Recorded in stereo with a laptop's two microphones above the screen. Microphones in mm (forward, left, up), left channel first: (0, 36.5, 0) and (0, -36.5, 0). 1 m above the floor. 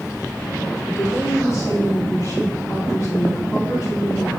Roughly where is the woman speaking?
Left.